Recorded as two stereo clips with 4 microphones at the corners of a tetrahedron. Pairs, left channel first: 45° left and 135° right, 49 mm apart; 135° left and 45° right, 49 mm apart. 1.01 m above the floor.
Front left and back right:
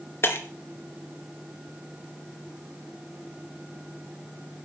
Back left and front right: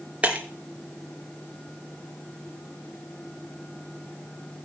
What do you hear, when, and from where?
0.2 s breaking glass: 15° left, 2.5 m